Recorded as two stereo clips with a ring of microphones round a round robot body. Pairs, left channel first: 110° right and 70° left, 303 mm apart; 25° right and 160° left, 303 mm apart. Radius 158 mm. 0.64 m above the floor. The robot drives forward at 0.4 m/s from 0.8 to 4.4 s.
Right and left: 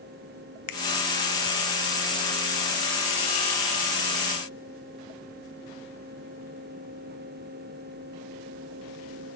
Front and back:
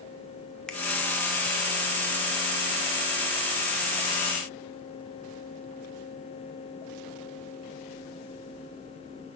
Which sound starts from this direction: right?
A finger snap, at 0.7 s.